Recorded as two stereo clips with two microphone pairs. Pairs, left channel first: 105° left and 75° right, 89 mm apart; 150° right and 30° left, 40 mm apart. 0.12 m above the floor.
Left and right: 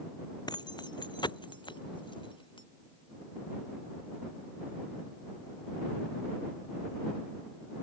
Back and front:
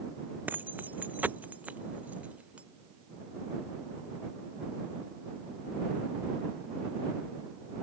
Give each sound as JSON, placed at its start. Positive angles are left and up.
{"t": 0.5, "sound": "keys jangling", "azimuth_deg": 70}